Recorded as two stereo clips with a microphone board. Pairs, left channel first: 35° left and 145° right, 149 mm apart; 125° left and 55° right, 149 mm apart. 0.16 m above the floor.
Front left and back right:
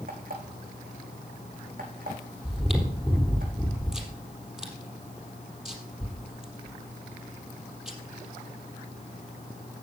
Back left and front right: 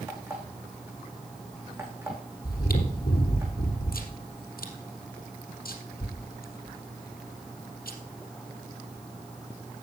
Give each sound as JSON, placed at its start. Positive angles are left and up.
{"t": 0.1, "sound": "an alarm clock", "azimuth_deg": -130, "distance_m": 6.5}
{"t": 2.4, "sound": "chewing", "azimuth_deg": 130, "distance_m": 3.5}